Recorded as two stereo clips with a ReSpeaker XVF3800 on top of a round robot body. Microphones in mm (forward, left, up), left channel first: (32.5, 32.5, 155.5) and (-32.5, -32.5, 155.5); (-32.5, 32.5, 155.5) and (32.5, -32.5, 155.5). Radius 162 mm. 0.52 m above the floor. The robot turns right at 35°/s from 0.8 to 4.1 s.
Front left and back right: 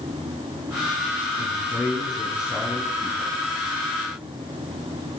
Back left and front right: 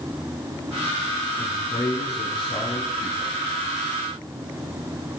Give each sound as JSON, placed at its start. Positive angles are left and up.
{"t": 1.4, "sound": "a man speaking", "azimuth_deg": 60, "distance_m": 7.5}